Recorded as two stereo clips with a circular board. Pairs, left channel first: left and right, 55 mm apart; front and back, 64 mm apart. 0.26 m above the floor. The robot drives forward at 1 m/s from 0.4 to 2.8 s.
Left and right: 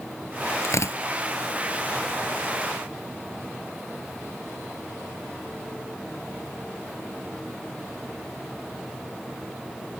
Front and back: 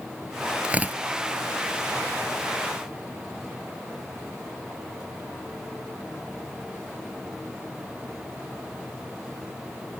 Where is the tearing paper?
110° left; by 1.0 s 120° left.